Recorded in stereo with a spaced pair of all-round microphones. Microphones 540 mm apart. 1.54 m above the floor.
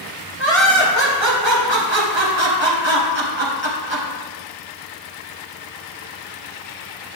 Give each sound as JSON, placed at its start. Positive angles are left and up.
{"t": 0.4, "sound": "laughter", "side_deg": -55, "distance_m": 1.4}